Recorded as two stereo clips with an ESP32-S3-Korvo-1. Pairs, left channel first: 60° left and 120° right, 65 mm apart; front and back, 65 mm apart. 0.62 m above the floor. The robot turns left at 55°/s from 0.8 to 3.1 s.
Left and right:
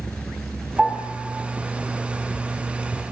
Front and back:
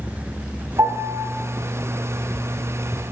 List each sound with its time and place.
0.8 s a piano: 160° left, 4 m; by 1.2 s 135° left, 4 m